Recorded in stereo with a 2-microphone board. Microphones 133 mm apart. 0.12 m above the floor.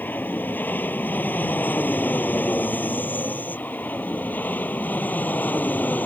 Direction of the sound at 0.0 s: 15° left (ahead or behind).